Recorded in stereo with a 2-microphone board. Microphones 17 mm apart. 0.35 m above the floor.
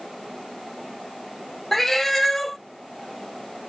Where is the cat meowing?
25° left (ahead or behind), 0.6 m.